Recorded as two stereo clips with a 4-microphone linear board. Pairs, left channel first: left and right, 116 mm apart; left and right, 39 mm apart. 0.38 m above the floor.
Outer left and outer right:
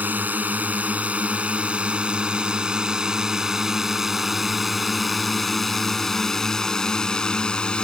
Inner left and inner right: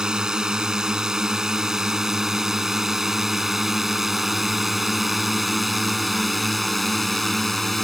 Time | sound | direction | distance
0.0 | a drone | 15° right (ahead or behind) | ?